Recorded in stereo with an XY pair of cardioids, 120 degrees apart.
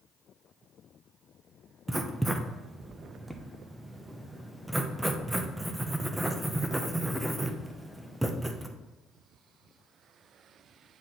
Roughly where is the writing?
Ahead.